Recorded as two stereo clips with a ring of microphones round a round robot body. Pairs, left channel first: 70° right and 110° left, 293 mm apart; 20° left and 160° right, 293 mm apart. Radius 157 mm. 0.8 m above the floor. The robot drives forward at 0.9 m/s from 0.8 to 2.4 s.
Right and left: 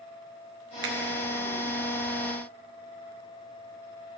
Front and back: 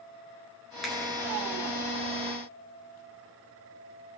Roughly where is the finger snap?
Left.